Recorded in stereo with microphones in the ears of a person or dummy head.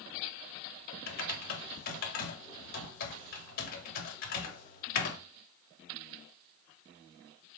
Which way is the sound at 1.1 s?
50° left (ahead or behind).